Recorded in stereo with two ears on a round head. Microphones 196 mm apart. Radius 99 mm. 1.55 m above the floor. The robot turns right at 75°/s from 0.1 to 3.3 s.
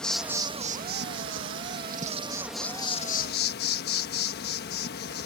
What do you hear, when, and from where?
0.0 s an insect: 175° left; by 5.3 s 55° left